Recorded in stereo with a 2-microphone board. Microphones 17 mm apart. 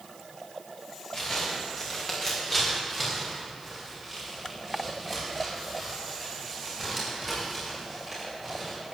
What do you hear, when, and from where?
1.1 s footsteps: 30° left (ahead or behind), 5 m; by 8.8 s 5° left (ahead or behind), 14.5 m